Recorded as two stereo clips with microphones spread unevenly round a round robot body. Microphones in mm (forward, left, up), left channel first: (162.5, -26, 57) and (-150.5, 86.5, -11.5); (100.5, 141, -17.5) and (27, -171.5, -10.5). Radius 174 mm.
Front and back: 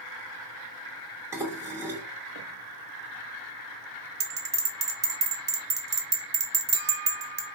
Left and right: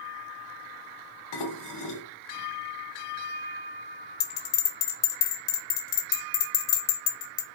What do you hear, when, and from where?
1.3 s dishes clattering: 80° left, 1.6 m
4.2 s a bell: 95° left, 1.8 m